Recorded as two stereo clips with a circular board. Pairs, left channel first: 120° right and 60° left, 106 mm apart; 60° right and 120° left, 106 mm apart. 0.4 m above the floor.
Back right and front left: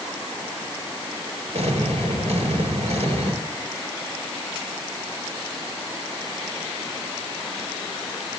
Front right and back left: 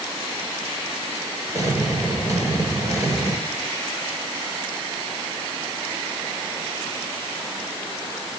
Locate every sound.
1.5 s an explosion: 60° left, 4 m